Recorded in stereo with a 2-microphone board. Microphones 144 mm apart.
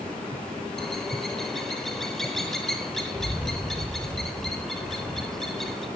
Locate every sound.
0.8 s a bird: centre (ahead or behind), 0.8 m